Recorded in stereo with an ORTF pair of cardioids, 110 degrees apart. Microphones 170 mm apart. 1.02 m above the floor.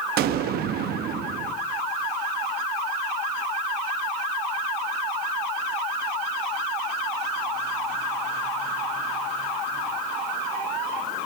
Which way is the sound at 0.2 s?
70° right.